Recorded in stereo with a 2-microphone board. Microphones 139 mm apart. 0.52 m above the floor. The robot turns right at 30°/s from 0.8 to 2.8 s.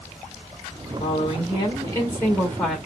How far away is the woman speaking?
About 1.5 m.